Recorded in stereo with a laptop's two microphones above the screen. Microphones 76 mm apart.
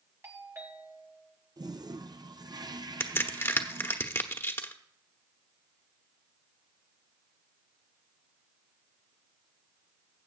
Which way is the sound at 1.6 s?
60° right (ahead or behind).